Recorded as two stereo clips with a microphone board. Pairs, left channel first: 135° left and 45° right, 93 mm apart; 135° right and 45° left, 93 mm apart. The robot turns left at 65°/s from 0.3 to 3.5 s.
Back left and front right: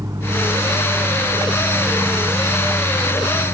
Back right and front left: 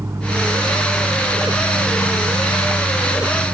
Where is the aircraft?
5° right; by 3.5 s 145° left.